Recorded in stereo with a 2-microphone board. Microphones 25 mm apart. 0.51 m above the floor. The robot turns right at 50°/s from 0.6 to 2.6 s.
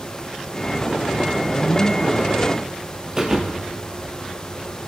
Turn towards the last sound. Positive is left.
turn(degrees=-20)  # may be behind; listen again after turning